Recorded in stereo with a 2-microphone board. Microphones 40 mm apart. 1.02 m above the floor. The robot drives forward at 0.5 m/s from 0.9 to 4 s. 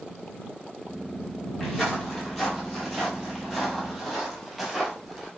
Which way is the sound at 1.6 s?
5° left (ahead or behind).